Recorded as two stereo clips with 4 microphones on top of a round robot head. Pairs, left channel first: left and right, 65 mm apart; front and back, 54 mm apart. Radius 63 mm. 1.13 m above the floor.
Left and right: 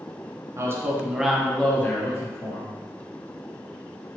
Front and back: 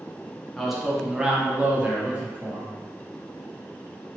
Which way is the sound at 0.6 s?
90° right.